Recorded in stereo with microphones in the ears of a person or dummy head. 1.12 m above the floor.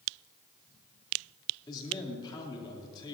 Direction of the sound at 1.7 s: 25° left (ahead or behind).